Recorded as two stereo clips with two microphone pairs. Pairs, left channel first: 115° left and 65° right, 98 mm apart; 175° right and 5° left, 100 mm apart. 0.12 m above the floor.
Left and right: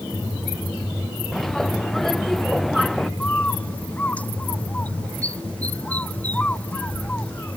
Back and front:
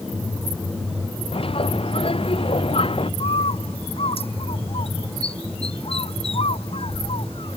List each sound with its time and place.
1.3 s a bird: 160° right
3.2 s a bird: 170° right